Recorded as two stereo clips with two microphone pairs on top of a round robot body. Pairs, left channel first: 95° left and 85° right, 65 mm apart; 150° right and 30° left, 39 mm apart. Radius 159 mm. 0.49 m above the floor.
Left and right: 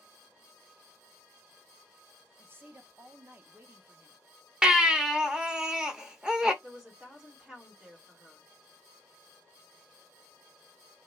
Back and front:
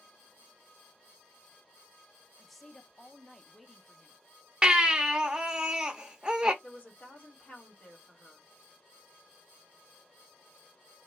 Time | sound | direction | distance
2.4 | a woman speaking | 65° right | 0.8 m
4.6 | a baby crying | 15° right | 0.9 m
6.6 | a woman speaking | 155° right | 1.6 m